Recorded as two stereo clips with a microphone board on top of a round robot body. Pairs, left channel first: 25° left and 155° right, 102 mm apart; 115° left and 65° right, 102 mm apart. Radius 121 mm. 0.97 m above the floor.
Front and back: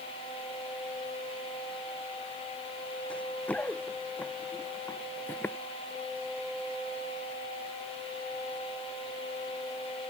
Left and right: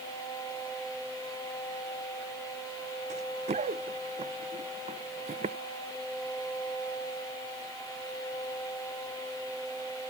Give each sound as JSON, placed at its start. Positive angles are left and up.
{"t": 3.1, "sound": "running footsteps", "azimuth_deg": -55}